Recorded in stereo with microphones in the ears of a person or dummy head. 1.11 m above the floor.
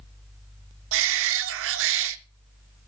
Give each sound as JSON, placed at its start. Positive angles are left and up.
{"t": 0.9, "sound": "a shout", "side_deg": -70, "distance_m": 0.5}